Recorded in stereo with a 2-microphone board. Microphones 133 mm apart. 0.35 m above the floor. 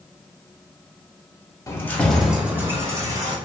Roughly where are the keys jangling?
Left.